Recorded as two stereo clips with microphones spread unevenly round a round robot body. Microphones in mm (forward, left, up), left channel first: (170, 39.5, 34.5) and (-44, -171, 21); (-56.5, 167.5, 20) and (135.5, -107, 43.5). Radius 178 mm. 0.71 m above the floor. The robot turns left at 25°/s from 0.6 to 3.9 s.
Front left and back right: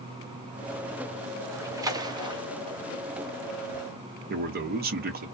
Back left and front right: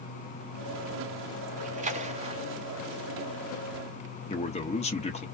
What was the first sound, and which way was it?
A splash, 80° right.